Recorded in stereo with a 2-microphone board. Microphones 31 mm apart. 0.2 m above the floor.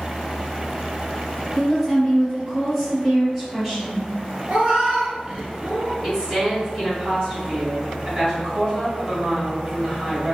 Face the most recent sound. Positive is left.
turn(degrees=-25)  # may be behind; listen again after turning